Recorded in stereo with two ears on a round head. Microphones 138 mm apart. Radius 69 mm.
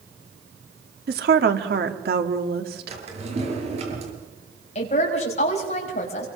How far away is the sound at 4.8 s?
About 5.5 m.